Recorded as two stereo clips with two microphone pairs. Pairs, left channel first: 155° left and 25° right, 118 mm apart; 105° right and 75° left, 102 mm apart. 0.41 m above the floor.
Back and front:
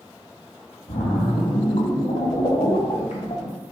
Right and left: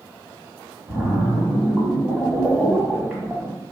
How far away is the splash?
About 1.8 m.